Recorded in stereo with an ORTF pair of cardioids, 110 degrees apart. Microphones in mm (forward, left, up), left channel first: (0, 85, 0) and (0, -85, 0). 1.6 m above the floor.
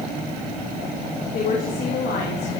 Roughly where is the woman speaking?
Ahead left.